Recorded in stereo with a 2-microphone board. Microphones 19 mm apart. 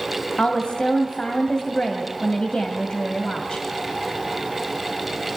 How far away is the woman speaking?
About 2 m.